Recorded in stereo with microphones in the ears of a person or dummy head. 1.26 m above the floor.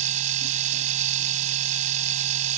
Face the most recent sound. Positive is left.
turn(degrees=-40)  # may be behind; listen again after turning